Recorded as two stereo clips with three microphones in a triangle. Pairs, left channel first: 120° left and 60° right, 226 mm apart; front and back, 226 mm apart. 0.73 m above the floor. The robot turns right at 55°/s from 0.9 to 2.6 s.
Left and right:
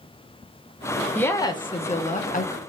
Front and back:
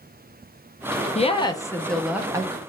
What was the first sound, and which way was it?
A woman speaking, 45° left.